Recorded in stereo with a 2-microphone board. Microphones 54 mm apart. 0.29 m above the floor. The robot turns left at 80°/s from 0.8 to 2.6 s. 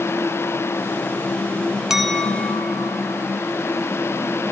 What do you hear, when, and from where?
1.9 s a clink: 170° right, 1.1 m; by 3.2 s 135° left, 1.1 m